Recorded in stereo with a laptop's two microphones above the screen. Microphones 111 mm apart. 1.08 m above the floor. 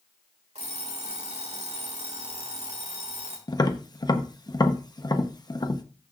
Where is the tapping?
35° left (ahead or behind), 0.9 m.